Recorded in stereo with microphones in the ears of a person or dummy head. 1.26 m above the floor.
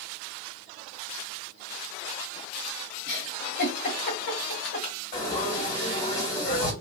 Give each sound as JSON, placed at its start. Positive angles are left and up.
{"t": 3.1, "sound": "a giggle", "side_deg": 45, "distance_m": 1.5}
{"t": 5.1, "sound": "frying", "side_deg": 35, "distance_m": 2.5}